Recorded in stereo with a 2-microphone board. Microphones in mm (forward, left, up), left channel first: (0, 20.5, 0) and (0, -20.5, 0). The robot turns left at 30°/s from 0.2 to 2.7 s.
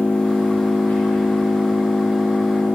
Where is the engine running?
140° left, 3.5 m; by 2.8 s 65° left, 3.5 m.